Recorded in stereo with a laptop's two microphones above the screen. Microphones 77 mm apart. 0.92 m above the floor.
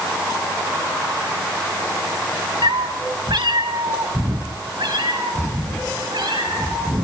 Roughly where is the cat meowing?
Right.